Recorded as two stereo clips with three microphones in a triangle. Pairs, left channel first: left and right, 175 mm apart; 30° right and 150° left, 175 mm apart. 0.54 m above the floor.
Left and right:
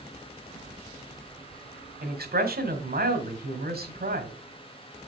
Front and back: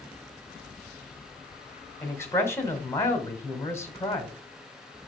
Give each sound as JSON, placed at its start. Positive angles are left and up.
{"t": 2.0, "sound": "a man speaking", "azimuth_deg": -105, "distance_m": 1.8}